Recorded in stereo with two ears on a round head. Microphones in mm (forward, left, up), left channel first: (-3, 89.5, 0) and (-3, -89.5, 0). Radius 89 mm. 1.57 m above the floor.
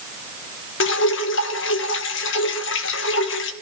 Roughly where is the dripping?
Left.